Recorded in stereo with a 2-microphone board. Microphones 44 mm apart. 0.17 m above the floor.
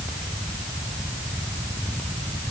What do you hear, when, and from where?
Only background noise.